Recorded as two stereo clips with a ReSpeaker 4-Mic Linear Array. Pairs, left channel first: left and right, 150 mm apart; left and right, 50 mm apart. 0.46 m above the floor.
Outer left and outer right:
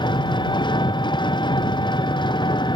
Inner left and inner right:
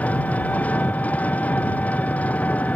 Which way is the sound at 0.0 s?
30° left (ahead or behind).